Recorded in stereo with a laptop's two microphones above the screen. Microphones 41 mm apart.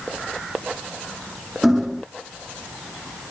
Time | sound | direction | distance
1.6 | hammering | 10° right (ahead or behind) | ?